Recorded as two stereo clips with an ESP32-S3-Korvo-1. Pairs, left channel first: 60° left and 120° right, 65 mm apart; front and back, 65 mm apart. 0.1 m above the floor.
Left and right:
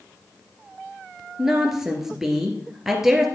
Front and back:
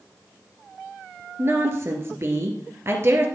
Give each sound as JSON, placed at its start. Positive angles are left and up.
{"t": 1.4, "sound": "a woman speaking", "azimuth_deg": 160, "distance_m": 2.0}